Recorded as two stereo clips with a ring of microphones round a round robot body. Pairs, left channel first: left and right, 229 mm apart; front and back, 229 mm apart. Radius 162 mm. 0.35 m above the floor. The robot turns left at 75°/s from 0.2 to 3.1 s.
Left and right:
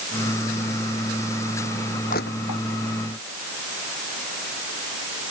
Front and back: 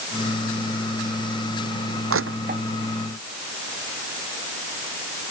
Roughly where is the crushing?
Behind.